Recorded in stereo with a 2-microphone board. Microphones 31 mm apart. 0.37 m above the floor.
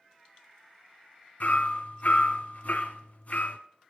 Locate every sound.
1.4 s hammering: 60° left (ahead or behind), 1.0 m